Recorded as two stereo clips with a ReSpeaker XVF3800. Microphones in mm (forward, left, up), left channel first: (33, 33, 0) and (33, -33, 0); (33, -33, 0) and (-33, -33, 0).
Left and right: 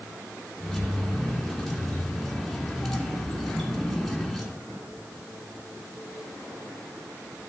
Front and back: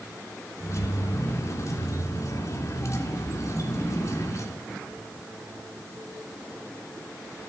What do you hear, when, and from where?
0.6 s keys jangling: straight ahead, 1.5 m